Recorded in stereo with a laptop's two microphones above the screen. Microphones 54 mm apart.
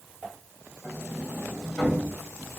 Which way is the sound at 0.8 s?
5° right (ahead or behind).